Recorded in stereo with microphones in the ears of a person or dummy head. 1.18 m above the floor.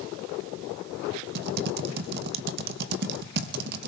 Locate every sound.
1.4 s typing on a keyboard: 55° right (ahead or behind), 0.6 m